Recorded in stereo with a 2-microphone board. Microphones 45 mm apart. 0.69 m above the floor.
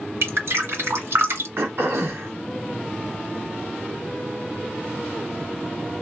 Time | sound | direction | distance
0.2 | dripping | 65° right (ahead or behind) | 1.6 m
1.6 | throat clearing | 60° right (ahead or behind) | 1.3 m